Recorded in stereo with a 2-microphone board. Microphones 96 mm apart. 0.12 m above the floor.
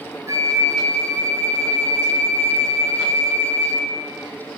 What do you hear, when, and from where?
0.3 s a flute: 35° right (ahead or behind), 0.8 m